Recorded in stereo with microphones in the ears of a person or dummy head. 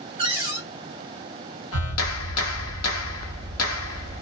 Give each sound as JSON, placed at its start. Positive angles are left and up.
{"t": 0.2, "sound": "a cupboard door", "side_deg": -30, "distance_m": 0.9}
{"t": 1.7, "sound": "a clap", "side_deg": 80, "distance_m": 0.9}